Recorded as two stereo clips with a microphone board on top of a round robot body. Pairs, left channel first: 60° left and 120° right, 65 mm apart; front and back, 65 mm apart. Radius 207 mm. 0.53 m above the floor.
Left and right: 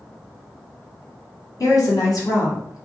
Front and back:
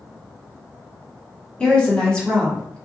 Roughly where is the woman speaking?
Left.